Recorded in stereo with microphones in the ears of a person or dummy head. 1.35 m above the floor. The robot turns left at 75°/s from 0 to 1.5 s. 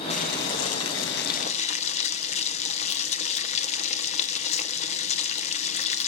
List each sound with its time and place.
0.1 s boiling: 150° left, 1.1 m; by 6.1 s 45° left, 1.1 m